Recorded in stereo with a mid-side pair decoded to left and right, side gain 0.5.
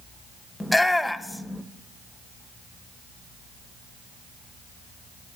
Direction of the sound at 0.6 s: 10° left.